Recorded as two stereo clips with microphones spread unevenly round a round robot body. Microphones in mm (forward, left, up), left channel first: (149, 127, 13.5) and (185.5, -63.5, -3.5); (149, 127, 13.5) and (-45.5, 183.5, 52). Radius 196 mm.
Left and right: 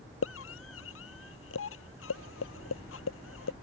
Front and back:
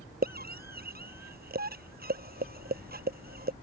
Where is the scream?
125° left.